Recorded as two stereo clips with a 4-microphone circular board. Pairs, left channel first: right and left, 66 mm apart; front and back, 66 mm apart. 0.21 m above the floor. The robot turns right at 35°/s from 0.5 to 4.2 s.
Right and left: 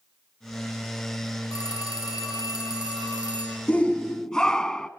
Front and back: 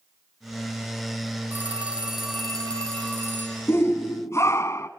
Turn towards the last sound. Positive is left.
turn(degrees=-15)